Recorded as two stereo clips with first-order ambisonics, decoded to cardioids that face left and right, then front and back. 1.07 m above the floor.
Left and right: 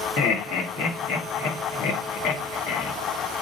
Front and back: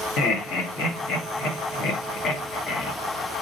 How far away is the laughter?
About 1.1 m.